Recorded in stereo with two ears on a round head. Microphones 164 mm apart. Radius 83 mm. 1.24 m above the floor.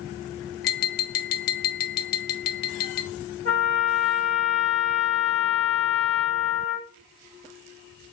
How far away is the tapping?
About 0.6 m.